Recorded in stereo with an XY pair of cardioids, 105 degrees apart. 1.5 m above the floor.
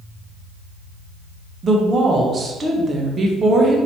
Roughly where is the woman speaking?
Ahead right.